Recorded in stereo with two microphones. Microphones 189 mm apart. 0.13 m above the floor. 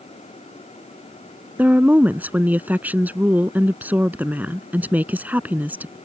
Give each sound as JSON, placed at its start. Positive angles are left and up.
{"t": 1.6, "sound": "a woman speaking", "side_deg": -10}